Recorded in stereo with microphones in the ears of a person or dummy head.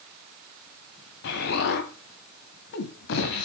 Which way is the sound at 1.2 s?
50° left (ahead or behind).